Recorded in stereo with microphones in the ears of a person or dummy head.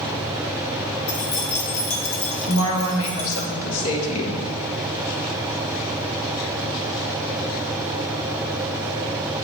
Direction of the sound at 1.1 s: 65° left (ahead or behind).